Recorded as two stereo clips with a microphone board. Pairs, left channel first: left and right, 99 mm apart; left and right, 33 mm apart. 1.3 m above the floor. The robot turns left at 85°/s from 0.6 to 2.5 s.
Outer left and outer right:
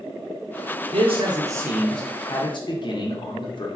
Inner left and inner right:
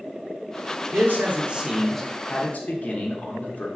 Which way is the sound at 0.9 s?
95° right.